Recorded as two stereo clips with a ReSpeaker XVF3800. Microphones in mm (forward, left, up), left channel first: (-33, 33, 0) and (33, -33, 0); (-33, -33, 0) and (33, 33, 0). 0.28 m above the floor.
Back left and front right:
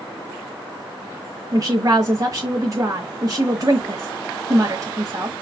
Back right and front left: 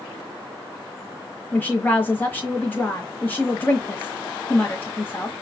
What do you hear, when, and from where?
1.5 s a woman speaking: 75° right, 1.5 m